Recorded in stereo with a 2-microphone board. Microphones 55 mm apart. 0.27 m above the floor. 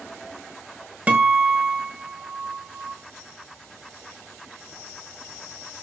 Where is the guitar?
25° right (ahead or behind), 1.7 m.